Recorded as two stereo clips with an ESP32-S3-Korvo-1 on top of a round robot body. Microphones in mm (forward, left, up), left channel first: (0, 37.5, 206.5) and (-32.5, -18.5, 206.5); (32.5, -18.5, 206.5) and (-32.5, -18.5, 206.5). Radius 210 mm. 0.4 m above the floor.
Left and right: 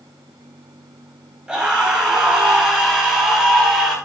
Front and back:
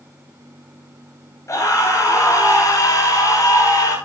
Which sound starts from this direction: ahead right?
A scream, at 1.5 s.